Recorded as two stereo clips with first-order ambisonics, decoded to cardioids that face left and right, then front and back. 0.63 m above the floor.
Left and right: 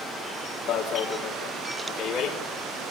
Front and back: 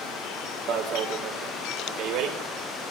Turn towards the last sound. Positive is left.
turn(degrees=145)